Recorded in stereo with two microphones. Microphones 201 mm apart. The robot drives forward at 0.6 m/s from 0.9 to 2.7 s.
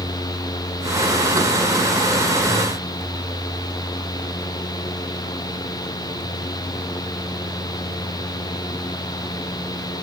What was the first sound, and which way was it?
Only background noise.